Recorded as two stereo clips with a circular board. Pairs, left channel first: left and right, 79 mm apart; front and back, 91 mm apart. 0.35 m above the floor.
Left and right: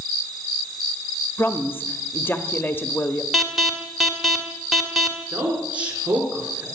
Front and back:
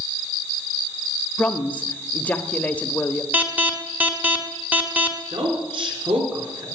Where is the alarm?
175° right, 1.7 m.